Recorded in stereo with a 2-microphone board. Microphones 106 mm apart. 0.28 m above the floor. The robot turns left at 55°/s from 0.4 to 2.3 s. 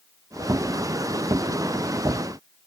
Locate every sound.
Only background noise.